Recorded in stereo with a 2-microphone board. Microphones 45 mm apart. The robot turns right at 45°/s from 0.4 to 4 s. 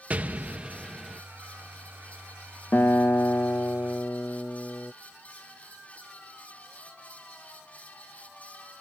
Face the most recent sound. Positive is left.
turn(degrees=125)